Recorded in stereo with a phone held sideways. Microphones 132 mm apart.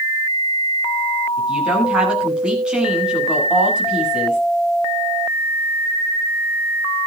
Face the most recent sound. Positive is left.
turn(degrees=-10)  # may be behind; listen again after turning